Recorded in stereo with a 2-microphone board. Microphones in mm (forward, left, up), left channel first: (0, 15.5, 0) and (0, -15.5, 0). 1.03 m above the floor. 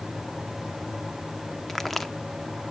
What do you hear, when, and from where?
1.7 s a crack: 5° left (ahead or behind), 1.4 m